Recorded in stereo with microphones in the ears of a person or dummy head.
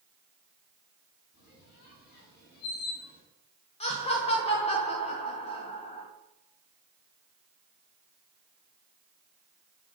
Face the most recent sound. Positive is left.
turn(degrees=35)  # may be behind; listen again after turning